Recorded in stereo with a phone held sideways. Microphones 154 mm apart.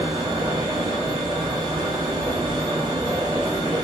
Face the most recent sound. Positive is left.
turn(degrees=-30)  # may be behind; listen again after turning